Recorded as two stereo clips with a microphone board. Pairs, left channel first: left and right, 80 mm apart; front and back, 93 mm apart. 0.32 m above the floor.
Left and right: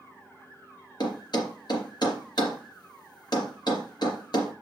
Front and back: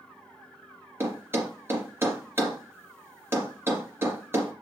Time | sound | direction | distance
1.0 | a thud | 120° left | 3 m